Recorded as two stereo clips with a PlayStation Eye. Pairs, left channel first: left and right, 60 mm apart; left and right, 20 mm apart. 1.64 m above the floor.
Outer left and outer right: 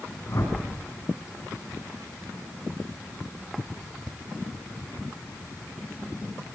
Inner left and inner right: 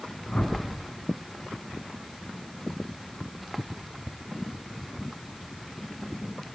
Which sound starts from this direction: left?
A whoosh, at 0.3 s.